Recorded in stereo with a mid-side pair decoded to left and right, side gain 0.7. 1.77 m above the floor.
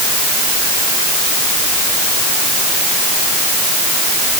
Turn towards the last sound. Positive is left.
No sound to turn to.